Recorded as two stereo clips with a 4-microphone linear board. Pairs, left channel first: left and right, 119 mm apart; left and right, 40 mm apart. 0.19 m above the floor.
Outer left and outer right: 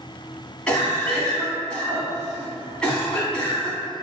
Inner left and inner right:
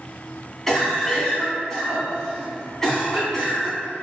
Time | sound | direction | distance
0.7 | a cough | 10° left (ahead or behind) | 1.9 m